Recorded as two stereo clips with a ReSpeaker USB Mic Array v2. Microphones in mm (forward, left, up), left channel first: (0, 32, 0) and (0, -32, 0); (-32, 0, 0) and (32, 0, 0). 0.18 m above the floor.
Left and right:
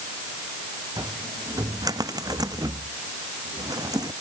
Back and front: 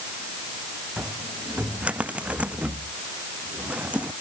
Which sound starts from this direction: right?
A cupboard door, at 1.0 s.